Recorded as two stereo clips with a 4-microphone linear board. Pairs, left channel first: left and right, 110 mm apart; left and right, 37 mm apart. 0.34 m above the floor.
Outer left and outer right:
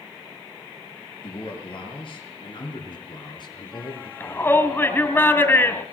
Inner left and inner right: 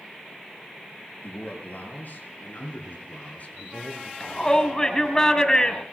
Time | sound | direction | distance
1.2 | a man speaking | 50° left (ahead or behind) | 6 m
4.2 | a shout | 20° left (ahead or behind) | 2 m